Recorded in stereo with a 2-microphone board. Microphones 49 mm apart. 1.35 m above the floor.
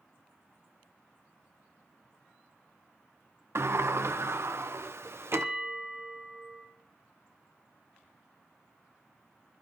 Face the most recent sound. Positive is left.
turn(degrees=-25)  # may be behind; listen again after turning